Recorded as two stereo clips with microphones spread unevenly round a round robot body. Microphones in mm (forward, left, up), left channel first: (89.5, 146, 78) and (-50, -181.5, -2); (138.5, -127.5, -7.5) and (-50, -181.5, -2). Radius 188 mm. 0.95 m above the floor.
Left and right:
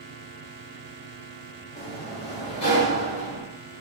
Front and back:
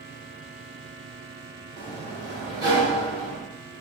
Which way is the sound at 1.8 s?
145° left.